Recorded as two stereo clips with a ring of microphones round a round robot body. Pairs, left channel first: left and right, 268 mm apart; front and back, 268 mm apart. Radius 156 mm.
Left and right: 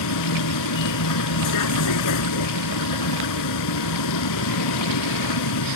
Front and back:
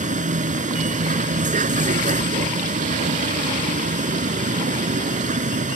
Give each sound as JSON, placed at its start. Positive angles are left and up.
{"t": 0.0, "sound": "a vehicle", "azimuth_deg": 115}